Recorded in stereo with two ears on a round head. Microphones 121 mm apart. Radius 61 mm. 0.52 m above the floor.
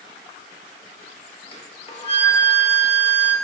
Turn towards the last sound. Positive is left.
turn(degrees=40)  # may be behind; listen again after turning